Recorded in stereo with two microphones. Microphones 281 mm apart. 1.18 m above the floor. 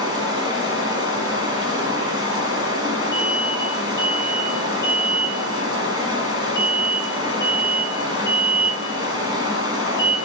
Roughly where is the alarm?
Centre.